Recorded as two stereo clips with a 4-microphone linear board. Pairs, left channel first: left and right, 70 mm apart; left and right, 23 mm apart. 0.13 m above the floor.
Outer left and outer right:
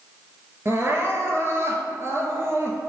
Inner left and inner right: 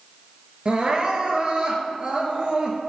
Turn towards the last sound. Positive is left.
turn(degrees=-45)  # may be behind; listen again after turning